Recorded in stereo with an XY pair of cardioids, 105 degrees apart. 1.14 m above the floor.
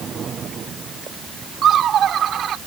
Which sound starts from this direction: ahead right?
Laughter, at 1.6 s.